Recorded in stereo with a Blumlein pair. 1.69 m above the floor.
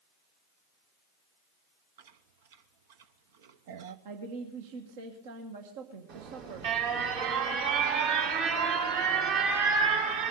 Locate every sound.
2.0 s chewing: 55° right, 0.9 m
4.0 s a woman speaking: 55° right, 1.5 m
6.1 s an alarm: 50° right, 3.5 m